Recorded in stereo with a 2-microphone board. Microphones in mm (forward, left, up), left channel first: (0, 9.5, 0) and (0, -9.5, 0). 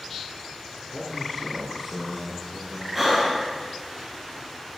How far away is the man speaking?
About 5.5 m.